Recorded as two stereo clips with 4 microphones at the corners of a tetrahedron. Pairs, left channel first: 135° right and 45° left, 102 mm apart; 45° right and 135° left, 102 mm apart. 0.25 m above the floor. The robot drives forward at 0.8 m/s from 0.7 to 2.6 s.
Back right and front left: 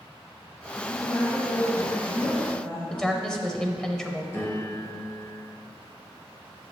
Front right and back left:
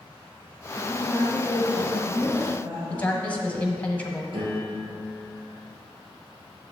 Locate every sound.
0.8 s a woman speaking: 125° right, 1.2 m; by 3.3 s 165° right, 2 m
2.9 s a woman speaking: 70° right, 0.9 m
4.3 s a piano: 165° left, 2.5 m